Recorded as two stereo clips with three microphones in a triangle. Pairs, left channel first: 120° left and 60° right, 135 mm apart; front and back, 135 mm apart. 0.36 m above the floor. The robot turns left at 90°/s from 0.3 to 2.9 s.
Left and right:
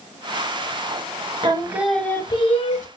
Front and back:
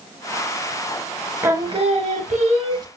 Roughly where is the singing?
Right.